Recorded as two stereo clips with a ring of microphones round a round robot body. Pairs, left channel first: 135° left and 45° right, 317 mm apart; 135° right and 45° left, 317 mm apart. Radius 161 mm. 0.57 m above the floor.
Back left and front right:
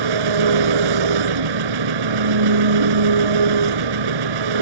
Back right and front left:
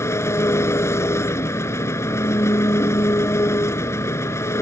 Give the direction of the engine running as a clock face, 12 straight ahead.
2 o'clock.